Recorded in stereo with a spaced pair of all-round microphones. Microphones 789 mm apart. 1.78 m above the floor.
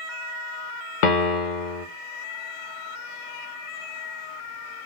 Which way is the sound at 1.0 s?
70° left (ahead or behind).